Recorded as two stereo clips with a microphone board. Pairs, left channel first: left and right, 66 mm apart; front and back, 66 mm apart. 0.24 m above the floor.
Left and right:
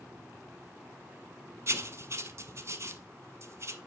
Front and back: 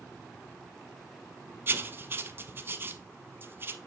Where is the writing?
125° right, 0.8 m.